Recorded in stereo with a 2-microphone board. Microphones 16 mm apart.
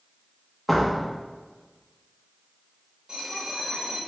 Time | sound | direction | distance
0.7 | a door slam | 5° left (ahead or behind) | 0.8 m
3.1 | a bell | 35° right (ahead or behind) | 1.1 m